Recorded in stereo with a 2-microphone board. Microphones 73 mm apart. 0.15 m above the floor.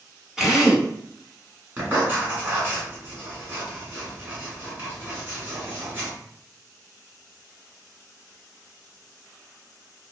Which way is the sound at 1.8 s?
25° right (ahead or behind).